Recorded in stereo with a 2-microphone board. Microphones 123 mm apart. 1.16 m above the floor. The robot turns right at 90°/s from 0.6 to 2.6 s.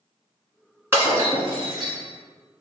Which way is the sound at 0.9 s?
155° right.